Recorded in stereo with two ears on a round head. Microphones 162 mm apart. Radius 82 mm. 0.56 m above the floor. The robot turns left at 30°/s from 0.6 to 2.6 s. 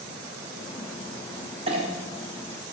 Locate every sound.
1.7 s a clink: 30° right (ahead or behind), 1.0 m; by 1.9 s 35° right (ahead or behind), 1.0 m